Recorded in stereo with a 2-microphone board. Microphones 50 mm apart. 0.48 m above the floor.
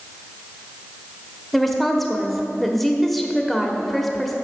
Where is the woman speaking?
5° left (ahead or behind), 1.2 m.